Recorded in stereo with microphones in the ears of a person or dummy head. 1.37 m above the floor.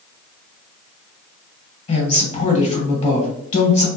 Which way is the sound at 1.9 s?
30° left (ahead or behind).